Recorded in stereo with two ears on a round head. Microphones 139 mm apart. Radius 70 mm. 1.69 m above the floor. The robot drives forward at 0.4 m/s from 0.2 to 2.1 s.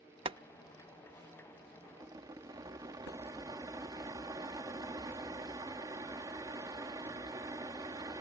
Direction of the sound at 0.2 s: 35° right (ahead or behind).